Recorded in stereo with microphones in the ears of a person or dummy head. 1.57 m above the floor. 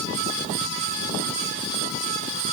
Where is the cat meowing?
I don't hear a cat meowing.